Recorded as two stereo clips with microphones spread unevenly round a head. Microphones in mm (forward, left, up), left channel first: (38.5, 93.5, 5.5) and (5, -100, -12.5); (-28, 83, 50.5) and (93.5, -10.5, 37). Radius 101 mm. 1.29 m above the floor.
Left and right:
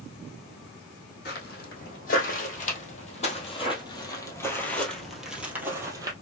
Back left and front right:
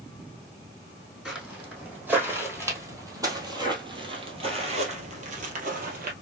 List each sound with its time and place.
1.2 s footsteps: 50° left, 3 m; by 6.1 s 30° right, 2.0 m